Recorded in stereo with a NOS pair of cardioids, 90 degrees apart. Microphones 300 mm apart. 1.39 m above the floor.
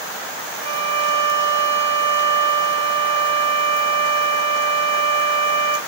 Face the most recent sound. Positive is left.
turn(degrees=-60)